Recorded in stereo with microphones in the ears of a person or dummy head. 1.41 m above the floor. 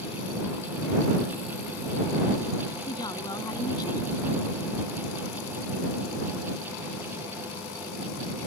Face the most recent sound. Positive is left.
turn(degrees=25)  # may be behind; listen again after turning